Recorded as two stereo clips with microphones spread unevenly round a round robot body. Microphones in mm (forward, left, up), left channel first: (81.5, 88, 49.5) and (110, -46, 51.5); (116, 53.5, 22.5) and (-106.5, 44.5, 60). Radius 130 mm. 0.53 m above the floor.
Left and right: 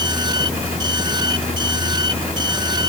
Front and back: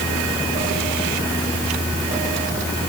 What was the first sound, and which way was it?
Only background noise.